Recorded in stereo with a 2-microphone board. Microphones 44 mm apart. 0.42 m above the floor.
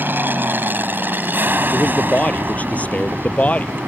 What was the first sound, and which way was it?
An aircraft, 45° right (ahead or behind).